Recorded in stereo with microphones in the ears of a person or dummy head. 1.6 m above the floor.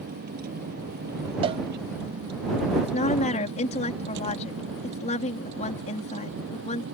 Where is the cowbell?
35° right (ahead or behind).